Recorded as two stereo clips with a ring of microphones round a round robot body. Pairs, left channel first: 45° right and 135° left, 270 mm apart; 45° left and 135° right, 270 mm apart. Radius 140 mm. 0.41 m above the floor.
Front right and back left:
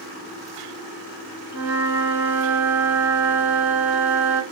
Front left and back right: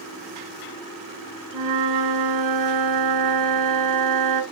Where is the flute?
140° right, 2 m.